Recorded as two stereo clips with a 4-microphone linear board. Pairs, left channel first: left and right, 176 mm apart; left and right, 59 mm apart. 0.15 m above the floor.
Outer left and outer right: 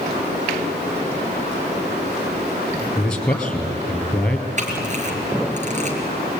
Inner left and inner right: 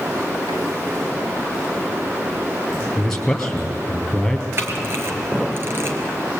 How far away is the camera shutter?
About 3.5 m.